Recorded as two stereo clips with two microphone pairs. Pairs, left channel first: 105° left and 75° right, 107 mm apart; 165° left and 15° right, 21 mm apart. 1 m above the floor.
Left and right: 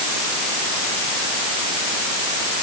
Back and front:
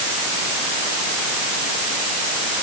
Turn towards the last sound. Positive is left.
No sound to turn to.